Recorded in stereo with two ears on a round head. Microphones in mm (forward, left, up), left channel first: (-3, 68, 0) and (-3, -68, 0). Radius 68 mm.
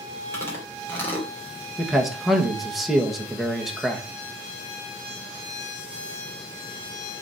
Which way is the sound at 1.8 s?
Centre (ahead or behind).